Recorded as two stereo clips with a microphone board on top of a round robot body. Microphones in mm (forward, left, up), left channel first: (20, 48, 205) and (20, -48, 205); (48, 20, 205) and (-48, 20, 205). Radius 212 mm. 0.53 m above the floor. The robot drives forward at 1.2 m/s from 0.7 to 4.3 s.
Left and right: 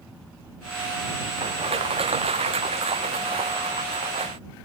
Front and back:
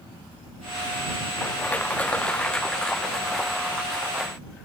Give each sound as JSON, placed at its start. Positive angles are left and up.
{"t": 1.4, "sound": "crushing", "azimuth_deg": -75}